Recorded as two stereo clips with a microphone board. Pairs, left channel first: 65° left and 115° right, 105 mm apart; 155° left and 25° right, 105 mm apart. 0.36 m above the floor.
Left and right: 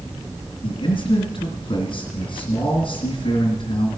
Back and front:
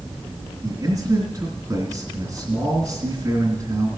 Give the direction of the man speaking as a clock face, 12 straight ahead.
11 o'clock.